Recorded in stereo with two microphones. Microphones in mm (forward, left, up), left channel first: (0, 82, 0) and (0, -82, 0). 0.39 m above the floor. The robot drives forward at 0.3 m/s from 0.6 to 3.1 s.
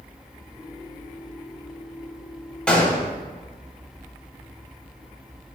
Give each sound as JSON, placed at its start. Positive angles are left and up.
{"t": 2.7, "sound": "a gunshot", "side_deg": 10, "distance_m": 0.6}